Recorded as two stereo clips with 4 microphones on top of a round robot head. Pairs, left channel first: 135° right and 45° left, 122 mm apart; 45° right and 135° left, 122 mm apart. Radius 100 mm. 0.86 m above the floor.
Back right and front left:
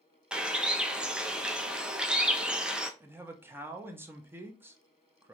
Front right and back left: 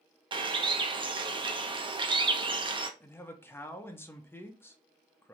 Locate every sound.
0.3 s a bird: 125° left, 0.7 m
3.0 s a man speaking: straight ahead, 0.7 m